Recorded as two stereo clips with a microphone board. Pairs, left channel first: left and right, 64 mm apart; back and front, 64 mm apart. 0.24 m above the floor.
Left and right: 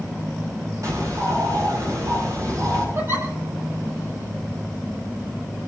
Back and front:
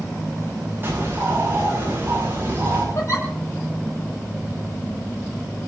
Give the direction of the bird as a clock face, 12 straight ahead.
2 o'clock.